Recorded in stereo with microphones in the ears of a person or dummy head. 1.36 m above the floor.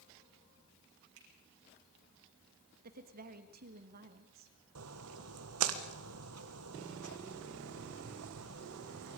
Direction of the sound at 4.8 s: 75° right (ahead or behind).